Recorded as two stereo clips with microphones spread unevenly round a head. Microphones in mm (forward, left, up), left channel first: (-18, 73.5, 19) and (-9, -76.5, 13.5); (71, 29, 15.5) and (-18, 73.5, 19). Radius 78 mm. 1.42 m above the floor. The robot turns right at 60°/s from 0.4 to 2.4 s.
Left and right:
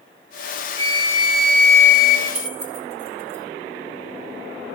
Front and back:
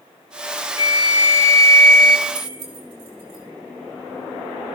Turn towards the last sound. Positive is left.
turn(degrees=-135)